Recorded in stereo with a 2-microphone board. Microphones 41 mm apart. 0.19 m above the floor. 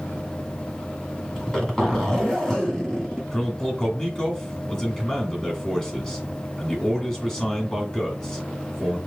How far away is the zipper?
About 1.9 m.